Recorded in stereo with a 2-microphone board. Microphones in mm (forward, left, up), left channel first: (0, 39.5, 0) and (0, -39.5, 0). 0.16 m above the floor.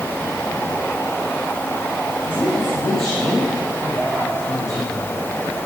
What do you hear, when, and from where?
2.2 s a woman speaking: 35° left (ahead or behind), 9.5 m; by 5.2 s 50° left (ahead or behind), 7 m